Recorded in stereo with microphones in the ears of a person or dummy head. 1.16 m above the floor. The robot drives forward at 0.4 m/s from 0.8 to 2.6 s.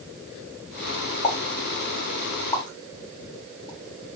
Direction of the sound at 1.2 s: 35° left (ahead or behind).